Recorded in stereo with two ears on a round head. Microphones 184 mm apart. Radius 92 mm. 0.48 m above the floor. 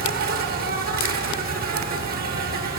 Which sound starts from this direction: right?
An insect, at 0.0 s.